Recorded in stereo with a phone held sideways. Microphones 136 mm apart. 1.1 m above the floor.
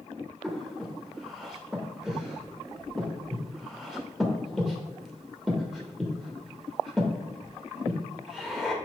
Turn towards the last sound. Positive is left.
turn(degrees=0)  # may be behind; listen again after turning